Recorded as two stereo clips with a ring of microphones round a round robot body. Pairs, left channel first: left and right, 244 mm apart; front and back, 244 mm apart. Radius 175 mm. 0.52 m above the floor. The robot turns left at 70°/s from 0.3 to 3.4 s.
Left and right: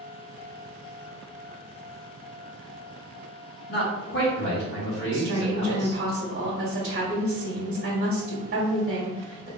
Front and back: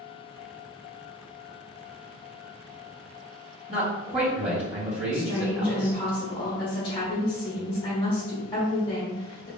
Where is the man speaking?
120° left, 1.6 m.